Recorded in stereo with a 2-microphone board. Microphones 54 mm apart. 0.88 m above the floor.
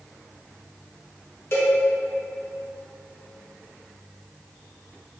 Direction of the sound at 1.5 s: 50° left (ahead or behind).